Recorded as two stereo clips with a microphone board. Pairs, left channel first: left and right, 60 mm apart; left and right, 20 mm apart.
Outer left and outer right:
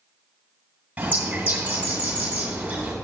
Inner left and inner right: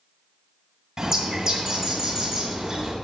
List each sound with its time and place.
1.0 s a bird: 30° right (ahead or behind), 2 m